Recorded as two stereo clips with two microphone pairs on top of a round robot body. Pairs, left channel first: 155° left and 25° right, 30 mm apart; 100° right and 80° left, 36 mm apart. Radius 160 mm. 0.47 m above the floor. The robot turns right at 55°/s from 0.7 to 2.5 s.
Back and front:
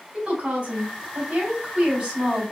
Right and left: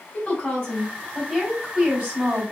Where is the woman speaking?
60° right, 4 m; by 2.5 s 40° left, 4 m.